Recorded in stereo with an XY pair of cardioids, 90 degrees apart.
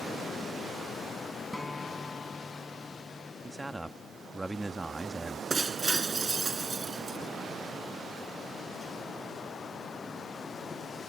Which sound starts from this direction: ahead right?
Breaking glass, at 5.5 s.